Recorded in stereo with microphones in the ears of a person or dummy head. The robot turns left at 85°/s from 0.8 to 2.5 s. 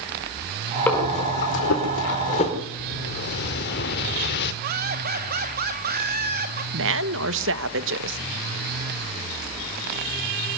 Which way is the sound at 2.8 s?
60° left (ahead or behind).